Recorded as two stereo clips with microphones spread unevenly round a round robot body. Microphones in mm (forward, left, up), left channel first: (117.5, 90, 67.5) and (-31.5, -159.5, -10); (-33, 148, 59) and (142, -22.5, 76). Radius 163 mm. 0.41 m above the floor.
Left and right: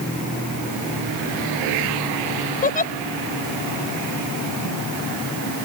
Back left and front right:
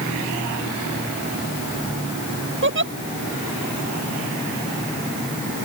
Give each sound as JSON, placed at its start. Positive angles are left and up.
{"t": 2.6, "sound": "a giggle", "azimuth_deg": -5}